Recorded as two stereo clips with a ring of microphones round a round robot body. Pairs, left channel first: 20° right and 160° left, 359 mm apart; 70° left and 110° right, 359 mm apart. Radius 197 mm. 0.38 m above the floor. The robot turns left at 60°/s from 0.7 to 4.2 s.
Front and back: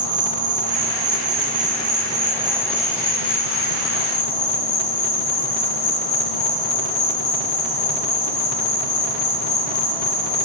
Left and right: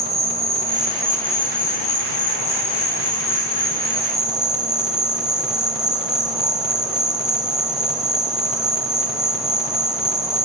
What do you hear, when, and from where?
0.0 s an insect: 175° right, 4 m; by 10.5 s 25° right, 4 m